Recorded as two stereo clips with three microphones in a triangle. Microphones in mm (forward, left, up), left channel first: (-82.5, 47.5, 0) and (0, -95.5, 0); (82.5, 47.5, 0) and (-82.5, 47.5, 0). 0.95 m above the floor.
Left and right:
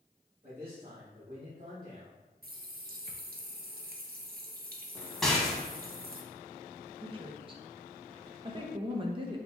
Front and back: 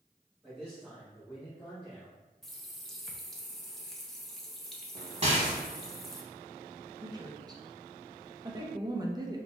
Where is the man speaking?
85° right, 1.4 m; by 2.2 s 80° right, 3 m.